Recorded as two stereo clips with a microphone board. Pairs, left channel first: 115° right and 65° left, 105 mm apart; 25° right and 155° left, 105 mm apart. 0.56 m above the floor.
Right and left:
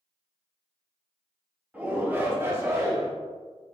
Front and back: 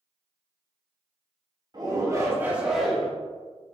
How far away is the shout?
About 1.0 m.